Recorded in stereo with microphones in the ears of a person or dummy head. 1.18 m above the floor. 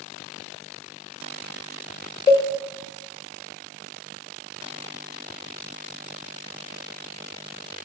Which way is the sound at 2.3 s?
25° left (ahead or behind).